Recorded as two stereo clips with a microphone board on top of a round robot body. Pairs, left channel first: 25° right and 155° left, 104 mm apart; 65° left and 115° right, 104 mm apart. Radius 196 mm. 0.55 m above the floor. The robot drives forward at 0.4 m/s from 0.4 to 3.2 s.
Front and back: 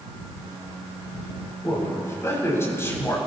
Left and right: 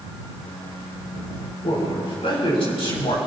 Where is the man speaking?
40° left, 6.5 m; by 3.2 s 45° left, 6 m.